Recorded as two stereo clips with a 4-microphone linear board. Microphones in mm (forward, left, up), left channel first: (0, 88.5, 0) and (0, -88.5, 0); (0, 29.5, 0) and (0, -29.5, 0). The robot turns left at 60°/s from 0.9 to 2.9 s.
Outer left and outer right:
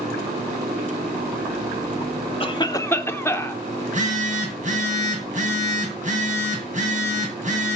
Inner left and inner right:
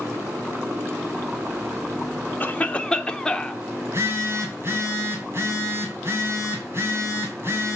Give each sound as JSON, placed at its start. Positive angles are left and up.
{"t": 2.4, "sound": "a cough", "azimuth_deg": 50, "distance_m": 0.8}
{"t": 3.8, "sound": "a phone buzzing", "side_deg": -45, "distance_m": 2.5}